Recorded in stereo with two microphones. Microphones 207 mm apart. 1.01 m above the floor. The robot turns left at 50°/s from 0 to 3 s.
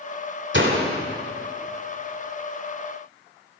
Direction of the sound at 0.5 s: 60° right (ahead or behind).